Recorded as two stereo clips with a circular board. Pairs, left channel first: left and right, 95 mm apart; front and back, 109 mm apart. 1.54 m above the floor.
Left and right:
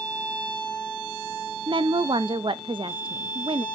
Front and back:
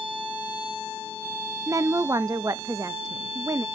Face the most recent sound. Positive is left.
turn(degrees=-120)